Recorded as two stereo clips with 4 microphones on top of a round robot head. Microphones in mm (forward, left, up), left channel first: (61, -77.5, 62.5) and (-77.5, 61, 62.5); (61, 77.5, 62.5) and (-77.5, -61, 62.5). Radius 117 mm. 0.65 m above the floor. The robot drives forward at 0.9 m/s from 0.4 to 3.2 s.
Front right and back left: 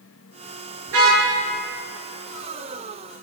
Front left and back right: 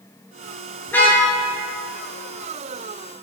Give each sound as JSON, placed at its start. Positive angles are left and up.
{"t": 0.9, "sound": "a car horn", "azimuth_deg": 125, "distance_m": 7.0}